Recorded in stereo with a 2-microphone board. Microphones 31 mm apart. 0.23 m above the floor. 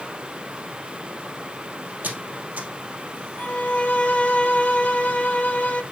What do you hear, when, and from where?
2.0 s a squeak: 60° right (ahead or behind), 2.5 m
3.4 s a violin: 45° left (ahead or behind), 0.7 m